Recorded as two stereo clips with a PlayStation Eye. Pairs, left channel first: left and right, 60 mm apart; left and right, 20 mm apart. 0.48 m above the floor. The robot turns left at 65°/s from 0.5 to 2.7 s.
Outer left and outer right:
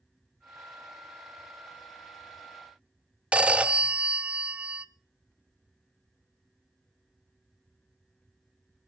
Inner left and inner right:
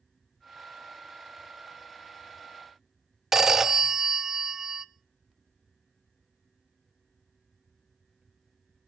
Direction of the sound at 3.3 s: 20° right (ahead or behind).